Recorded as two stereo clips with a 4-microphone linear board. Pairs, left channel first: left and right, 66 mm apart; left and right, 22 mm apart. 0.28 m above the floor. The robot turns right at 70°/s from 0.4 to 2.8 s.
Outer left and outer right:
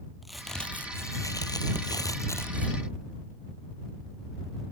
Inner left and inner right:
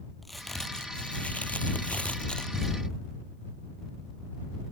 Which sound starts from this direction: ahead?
A crack, at 0.2 s.